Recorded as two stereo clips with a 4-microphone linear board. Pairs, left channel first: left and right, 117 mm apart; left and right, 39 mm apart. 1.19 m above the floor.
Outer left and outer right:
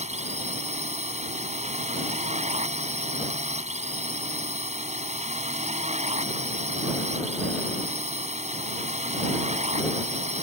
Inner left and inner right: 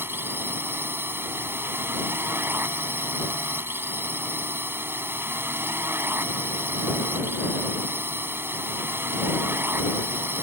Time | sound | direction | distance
0.0 | a drone | 70° right (ahead or behind) | ?